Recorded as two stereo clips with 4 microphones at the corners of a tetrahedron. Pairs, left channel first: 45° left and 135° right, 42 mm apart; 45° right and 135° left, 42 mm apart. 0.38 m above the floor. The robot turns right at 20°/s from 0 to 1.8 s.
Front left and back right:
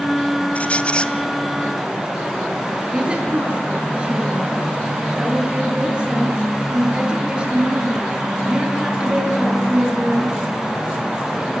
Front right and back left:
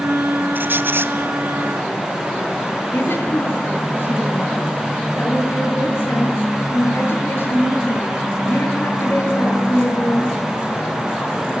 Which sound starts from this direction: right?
A woman speaking, at 2.9 s.